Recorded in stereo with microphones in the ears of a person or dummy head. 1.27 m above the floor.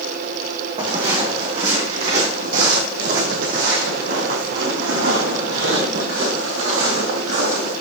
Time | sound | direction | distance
0.8 | footsteps | 35° right (ahead or behind) | 3 m